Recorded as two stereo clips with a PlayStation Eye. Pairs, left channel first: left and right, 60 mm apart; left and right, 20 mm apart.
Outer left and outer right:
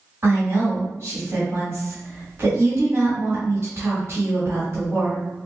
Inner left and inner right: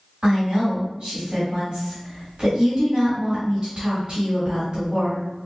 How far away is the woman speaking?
About 1.5 m.